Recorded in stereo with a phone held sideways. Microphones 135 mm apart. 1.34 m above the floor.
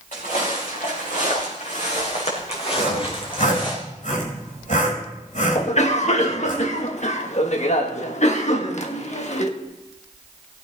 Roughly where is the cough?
Left.